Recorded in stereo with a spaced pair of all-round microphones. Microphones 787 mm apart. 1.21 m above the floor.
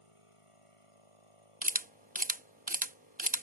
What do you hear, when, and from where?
0.0 s a machine running: 40° left (ahead or behind)
1.6 s a camera shutter: 10° right (ahead or behind)